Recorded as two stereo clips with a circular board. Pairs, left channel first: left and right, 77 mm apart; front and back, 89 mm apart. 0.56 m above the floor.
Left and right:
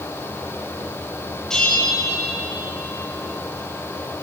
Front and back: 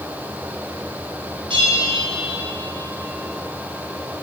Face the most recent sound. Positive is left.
turn(degrees=170)